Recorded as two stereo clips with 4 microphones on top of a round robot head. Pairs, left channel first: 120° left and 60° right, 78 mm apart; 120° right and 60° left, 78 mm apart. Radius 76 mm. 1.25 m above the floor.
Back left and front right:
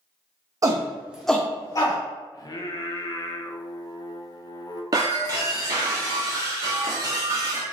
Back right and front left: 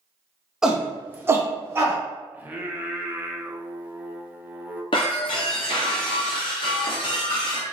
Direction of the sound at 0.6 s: 25° right.